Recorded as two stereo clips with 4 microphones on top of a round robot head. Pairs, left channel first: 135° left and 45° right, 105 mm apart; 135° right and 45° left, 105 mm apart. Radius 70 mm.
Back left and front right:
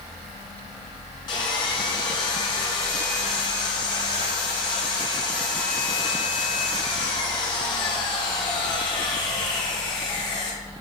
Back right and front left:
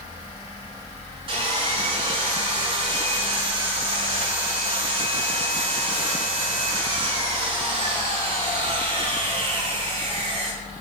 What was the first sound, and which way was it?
Sawing, 85° left.